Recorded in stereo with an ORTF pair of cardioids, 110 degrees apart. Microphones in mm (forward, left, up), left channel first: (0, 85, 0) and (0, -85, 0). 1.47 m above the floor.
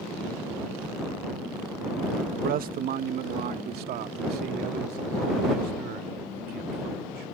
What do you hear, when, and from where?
2.3 s a man speaking: 55° right; by 7.2 s 70° right